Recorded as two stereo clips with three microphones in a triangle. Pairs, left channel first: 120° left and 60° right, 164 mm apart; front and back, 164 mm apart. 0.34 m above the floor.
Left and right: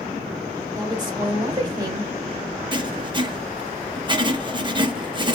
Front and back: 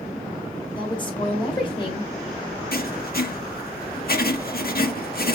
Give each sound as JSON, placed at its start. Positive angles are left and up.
{"t": 0.8, "sound": "a woman speaking", "azimuth_deg": -25, "distance_m": 1.2}
{"t": 2.7, "sound": "writing", "azimuth_deg": 0, "distance_m": 0.5}